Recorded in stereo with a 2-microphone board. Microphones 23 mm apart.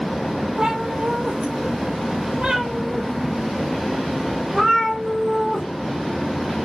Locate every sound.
0.6 s a cat meowing: 45° right (ahead or behind), 0.9 m; by 5.7 s 15° right (ahead or behind), 2.5 m